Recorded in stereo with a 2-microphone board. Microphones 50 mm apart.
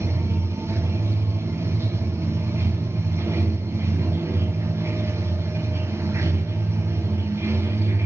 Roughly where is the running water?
Right.